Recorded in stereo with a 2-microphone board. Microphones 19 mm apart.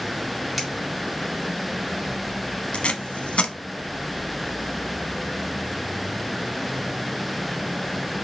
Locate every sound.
0.6 s a finger snap: 5° right (ahead or behind), 1.9 m
2.7 s tape being pulled: 65° left (ahead or behind), 0.5 m